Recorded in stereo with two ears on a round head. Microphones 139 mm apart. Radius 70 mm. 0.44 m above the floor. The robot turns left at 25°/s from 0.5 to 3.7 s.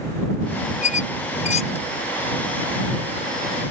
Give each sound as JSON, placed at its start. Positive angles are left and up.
{"t": 0.8, "sound": "a squeak", "side_deg": 45}